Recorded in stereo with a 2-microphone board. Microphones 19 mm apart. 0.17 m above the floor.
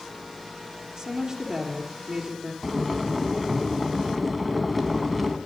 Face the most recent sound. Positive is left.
turn(degrees=0)  # may be behind; listen again after turning